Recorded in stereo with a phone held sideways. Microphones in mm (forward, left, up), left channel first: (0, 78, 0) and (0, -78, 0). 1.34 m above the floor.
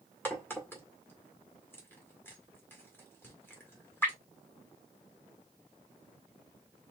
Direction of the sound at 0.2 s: 15° left (ahead or behind).